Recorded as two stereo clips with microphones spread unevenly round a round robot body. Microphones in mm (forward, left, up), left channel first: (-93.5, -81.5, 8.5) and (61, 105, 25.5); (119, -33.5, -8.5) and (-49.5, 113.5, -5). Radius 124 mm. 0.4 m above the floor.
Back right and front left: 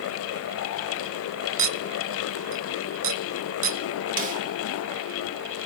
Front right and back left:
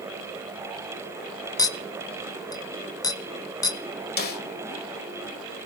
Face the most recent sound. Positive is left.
turn(degrees=-5)